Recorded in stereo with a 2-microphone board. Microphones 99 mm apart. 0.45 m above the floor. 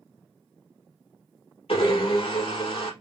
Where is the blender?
75° left (ahead or behind), 3 m.